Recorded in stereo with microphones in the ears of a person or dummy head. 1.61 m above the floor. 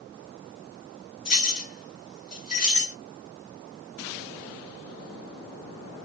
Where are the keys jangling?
30° left (ahead or behind), 1.4 m.